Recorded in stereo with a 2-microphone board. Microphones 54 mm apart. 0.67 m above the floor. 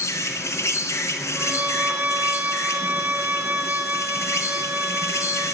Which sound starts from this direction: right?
A violin, at 1.4 s.